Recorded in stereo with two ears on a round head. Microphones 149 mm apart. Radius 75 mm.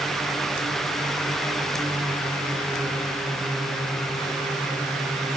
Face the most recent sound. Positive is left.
No sound to turn to.